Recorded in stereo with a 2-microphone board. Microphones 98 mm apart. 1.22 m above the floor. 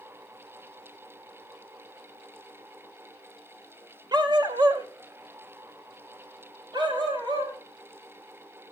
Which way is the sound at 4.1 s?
45° right (ahead or behind).